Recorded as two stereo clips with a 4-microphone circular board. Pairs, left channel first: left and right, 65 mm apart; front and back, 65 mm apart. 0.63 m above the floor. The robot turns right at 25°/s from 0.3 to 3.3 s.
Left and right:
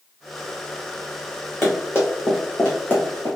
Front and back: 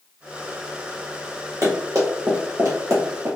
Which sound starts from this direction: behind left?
Running footsteps, at 1.6 s.